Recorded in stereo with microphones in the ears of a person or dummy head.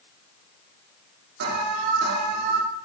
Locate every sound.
1.4 s an alarm: 50° right (ahead or behind), 2 m